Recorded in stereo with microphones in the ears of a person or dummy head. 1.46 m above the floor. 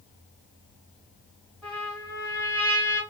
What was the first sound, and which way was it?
A trumpet, 5° right (ahead or behind).